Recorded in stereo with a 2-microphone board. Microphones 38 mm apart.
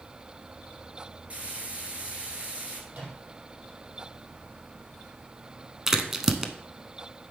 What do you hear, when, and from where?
1.3 s frying: 35° right (ahead or behind), 1.6 m
2.9 s a microwave: 45° right (ahead or behind), 4.5 m
5.9 s a crack: 10° right (ahead or behind), 0.6 m